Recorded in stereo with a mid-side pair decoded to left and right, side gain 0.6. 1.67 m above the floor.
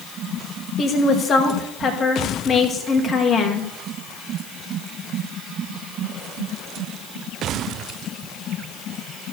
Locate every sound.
0.8 s a woman speaking: 40° left, 2.5 m